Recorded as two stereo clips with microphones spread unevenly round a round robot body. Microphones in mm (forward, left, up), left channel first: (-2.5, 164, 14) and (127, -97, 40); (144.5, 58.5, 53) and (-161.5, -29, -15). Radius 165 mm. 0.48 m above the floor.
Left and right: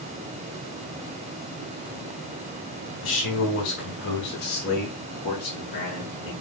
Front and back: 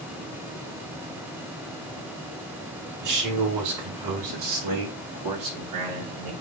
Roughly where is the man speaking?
Behind.